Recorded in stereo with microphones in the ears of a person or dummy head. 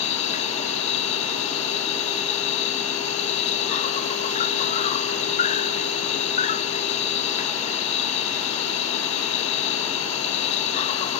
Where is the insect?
40° left (ahead or behind).